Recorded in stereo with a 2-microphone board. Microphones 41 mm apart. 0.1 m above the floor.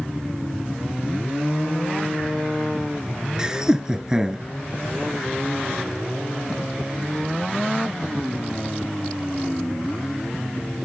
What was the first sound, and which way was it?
Laughter, 15° right (ahead or behind).